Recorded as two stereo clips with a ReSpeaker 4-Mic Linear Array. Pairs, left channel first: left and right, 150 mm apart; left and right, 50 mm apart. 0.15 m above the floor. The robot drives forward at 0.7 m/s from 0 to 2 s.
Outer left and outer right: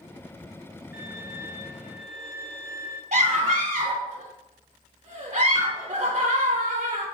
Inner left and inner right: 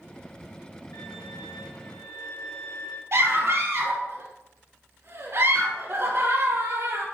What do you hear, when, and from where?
0.9 s a violin: 85° left, 3.5 m
3.1 s a scream: 50° right (ahead or behind), 3.5 m